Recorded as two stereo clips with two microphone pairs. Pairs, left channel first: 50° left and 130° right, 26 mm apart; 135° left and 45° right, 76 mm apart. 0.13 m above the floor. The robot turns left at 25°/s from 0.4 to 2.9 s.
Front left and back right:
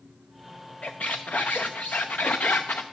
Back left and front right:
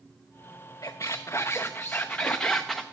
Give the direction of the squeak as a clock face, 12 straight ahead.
9 o'clock.